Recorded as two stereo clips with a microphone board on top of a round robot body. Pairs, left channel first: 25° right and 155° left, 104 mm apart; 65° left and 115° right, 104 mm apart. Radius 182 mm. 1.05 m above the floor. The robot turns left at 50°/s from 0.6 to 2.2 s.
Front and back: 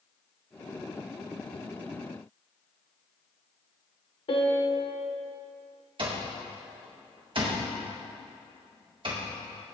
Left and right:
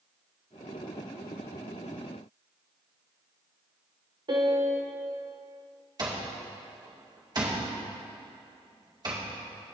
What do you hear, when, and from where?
4.3 s a piano: 65° right, 0.7 m
6.0 s an alarm clock: 165° right, 2 m